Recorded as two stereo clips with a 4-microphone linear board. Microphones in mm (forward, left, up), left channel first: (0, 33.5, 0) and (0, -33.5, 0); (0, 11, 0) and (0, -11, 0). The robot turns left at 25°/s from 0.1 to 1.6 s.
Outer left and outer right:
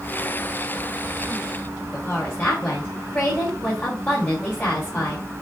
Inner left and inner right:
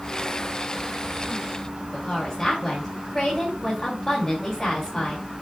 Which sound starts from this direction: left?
A woman speaking, at 1.9 s.